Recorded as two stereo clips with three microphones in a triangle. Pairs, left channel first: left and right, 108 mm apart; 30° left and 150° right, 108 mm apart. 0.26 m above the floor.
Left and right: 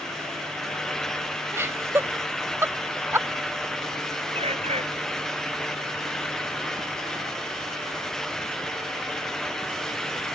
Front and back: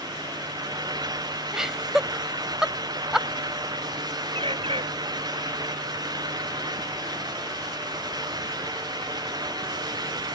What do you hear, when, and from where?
1.5 s laughter: 70° right
4.3 s a bird: 115° right